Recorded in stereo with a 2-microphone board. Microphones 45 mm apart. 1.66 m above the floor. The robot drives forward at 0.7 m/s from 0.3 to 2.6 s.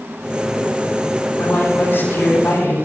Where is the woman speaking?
65° left (ahead or behind), 9 m; by 2.8 s 70° left (ahead or behind), 9 m.